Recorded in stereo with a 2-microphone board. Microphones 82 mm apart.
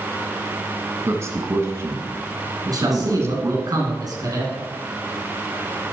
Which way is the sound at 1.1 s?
35° right (ahead or behind).